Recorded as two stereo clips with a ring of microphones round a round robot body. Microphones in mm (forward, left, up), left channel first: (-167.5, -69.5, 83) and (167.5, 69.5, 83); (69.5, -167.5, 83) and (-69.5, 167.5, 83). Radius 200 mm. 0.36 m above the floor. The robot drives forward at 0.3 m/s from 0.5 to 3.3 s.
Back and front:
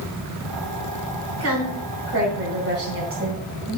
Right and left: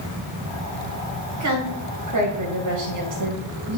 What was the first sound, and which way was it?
A woman speaking, 70° left.